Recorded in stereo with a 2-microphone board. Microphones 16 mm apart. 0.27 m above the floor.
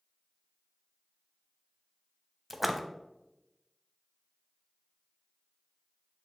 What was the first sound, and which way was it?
A splash, 10° right (ahead or behind).